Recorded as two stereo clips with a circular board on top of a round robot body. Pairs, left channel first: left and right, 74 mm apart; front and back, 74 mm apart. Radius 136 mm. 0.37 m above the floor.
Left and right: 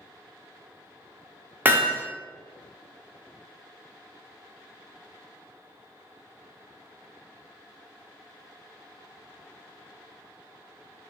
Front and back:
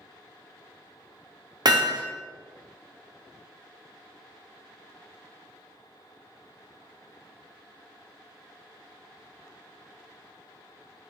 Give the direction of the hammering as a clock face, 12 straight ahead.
5 o'clock.